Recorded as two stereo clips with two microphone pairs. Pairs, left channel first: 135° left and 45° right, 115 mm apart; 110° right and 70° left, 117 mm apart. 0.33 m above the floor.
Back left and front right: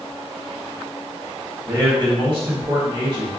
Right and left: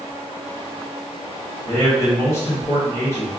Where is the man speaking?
50° right, 1.4 m.